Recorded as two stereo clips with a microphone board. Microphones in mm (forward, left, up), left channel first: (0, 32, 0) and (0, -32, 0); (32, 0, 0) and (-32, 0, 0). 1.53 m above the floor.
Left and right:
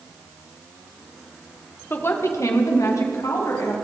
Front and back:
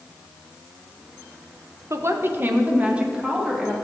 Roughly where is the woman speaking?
Behind left.